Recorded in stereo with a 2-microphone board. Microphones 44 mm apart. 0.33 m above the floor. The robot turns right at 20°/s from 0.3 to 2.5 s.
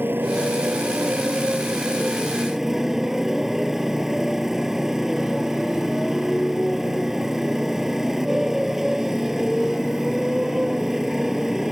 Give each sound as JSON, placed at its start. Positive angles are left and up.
{"t": 0.0, "sound": "a motorcycle", "azimuth_deg": -50}